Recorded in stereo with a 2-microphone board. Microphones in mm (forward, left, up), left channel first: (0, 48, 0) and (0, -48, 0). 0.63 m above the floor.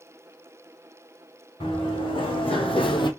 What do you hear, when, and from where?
1.6 s running footsteps: 65° left (ahead or behind), 3 m; by 3.1 s 55° left (ahead or behind), 1.1 m